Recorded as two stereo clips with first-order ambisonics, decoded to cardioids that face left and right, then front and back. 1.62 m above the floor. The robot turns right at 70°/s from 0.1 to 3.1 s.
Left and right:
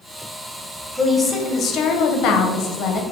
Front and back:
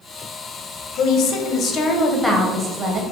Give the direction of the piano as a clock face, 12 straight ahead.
I don't hear a piano.